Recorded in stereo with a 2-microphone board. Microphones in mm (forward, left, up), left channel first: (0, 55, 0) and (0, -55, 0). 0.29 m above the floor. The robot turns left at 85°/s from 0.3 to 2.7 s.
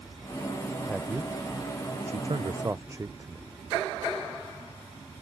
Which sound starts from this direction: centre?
A man speaking, at 0.9 s.